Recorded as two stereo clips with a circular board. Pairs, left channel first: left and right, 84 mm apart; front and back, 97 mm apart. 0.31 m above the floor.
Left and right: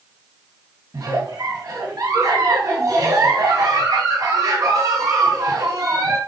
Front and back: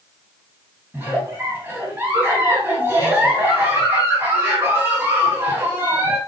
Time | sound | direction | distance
0.9 | a giggle | 120° right | 2.5 m